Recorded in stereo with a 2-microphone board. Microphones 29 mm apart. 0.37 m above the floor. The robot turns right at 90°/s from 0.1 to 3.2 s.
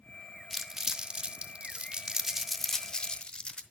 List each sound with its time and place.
0.5 s crumpling: centre (ahead or behind), 0.8 m; by 3.6 s 35° left (ahead or behind), 0.8 m